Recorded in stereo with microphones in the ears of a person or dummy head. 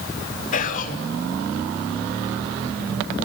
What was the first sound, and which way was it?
Whispering, 50° left (ahead or behind).